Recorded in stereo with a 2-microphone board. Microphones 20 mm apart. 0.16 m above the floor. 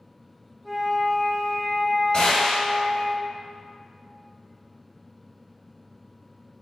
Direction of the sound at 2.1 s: 45° left (ahead or behind).